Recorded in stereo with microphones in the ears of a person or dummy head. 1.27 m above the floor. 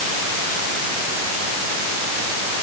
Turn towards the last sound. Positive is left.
No sound to turn to.